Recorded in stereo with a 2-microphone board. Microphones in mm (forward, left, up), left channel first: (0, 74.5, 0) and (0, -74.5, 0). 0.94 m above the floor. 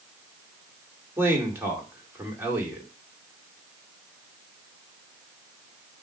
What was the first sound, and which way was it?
A man speaking, 15° right (ahead or behind).